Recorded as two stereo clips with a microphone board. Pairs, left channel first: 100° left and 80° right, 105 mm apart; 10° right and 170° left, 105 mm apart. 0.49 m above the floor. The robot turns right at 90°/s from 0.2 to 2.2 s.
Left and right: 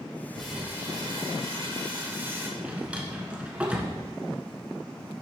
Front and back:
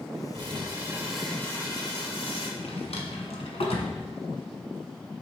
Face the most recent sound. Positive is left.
turn(degrees=0)